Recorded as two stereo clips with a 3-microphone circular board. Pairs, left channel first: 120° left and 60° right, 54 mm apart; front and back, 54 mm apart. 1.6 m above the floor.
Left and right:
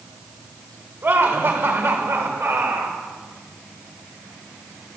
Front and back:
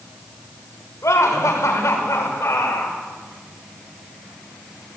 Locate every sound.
1.0 s laughter: 20° right, 6 m; by 3.0 s 30° right, 6 m